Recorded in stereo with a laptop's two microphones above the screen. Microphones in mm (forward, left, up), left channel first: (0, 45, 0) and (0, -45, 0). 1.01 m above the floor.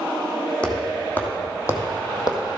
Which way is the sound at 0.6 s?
15° left (ahead or behind).